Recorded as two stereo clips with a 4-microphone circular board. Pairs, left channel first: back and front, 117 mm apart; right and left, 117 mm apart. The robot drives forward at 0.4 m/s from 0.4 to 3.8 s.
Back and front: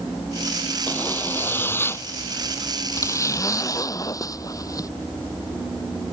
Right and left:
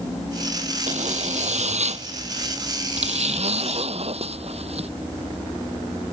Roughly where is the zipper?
Left.